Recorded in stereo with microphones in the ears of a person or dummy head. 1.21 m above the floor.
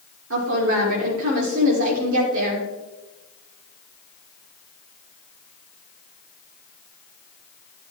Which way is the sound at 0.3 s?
70° right (ahead or behind).